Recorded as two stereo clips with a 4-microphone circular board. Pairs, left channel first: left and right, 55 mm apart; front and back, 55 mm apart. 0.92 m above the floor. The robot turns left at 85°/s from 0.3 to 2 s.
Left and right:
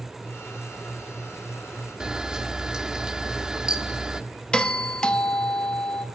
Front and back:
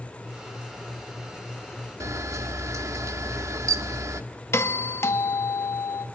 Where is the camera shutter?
165° right, 1.2 m.